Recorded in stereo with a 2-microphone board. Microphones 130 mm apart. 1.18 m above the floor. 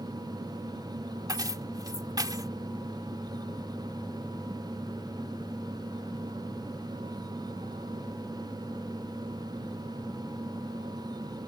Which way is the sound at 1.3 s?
30° right (ahead or behind).